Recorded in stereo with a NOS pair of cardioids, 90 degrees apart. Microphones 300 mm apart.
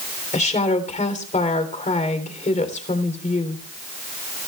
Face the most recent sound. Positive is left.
turn(degrees=25)